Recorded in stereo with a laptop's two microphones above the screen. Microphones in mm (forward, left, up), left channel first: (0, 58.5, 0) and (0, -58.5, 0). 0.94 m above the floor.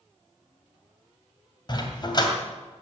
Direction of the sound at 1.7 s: 35° left (ahead or behind).